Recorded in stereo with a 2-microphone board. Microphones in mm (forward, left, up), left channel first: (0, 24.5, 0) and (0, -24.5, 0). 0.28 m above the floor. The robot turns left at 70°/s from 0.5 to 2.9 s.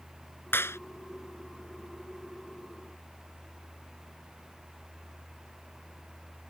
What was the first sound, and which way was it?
A clap, 50° left (ahead or behind).